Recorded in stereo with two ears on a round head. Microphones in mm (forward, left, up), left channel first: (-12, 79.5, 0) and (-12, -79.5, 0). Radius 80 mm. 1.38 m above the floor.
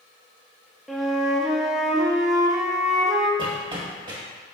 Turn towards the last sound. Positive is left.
turn(degrees=-30)  # may be behind; listen again after turning